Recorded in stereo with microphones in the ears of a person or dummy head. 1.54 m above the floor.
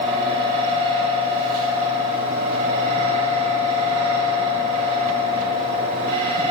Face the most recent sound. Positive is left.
turn(degrees=-55)  # may be behind; listen again after turning